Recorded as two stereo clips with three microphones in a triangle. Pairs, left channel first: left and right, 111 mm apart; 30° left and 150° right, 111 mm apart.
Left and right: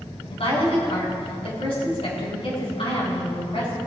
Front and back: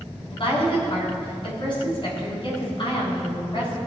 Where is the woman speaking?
65° left, 4 m.